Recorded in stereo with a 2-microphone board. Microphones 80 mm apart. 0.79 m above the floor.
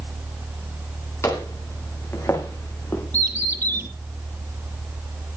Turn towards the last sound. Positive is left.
turn(degrees=-50)  # may be behind; listen again after turning